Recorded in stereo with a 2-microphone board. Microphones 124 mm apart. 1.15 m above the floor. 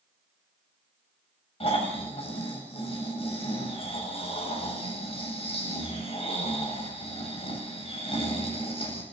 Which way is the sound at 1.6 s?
50° left (ahead or behind).